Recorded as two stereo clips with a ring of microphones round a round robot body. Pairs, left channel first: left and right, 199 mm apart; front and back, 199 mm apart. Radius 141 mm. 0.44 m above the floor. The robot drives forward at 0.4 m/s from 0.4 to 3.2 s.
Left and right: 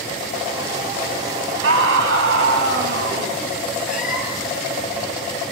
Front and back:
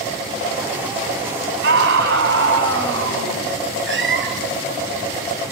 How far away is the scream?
About 3.5 m.